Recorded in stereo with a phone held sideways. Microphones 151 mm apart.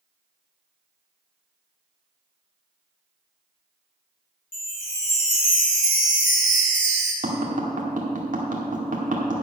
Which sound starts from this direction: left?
A chime, at 4.5 s.